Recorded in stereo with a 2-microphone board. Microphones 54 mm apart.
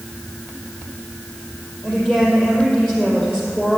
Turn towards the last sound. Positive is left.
turn(degrees=15)  # may be behind; listen again after turning